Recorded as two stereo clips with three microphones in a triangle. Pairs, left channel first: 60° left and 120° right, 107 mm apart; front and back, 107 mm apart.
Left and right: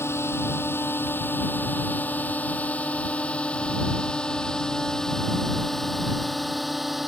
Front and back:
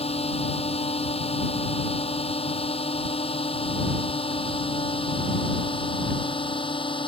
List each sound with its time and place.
0.0 s a drone: 5° right; by 7.1 s 30° right